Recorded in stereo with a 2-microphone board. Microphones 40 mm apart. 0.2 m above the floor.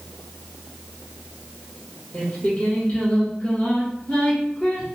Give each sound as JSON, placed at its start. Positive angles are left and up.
{"t": 2.1, "sound": "singing", "side_deg": 25, "distance_m": 1.6}